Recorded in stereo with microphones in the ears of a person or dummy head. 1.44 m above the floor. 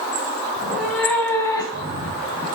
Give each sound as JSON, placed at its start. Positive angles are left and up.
{"t": 0.6, "sound": "a cat meowing", "side_deg": -5, "distance_m": 1.6}